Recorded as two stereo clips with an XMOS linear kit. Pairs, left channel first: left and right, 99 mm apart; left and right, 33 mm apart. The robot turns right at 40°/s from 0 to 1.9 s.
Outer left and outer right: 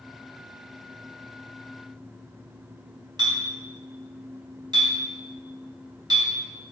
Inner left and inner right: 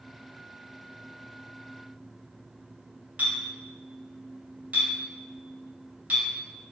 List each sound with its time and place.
3.2 s a clink: 45° right (ahead or behind), 1.5 m